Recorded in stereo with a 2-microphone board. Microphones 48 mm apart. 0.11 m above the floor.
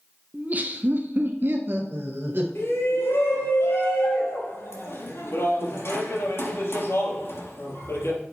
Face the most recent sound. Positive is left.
turn(degrees=60)  # may be behind; listen again after turning